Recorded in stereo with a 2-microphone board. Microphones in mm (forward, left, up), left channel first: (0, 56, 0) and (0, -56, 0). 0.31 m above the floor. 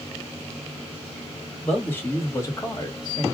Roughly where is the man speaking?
Centre.